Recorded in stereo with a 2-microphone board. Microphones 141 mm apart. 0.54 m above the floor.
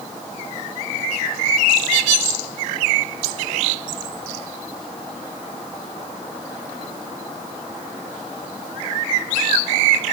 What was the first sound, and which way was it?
Only background noise.